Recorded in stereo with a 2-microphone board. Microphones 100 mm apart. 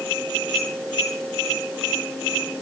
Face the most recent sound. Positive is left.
No sound to turn to.